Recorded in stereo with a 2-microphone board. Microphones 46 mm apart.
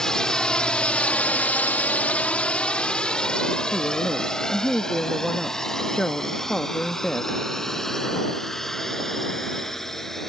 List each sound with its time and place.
0.0 s a drone: 15° left (ahead or behind); by 10.3 s 10° left (ahead or behind)
3.7 s a woman speaking: 10° left (ahead or behind)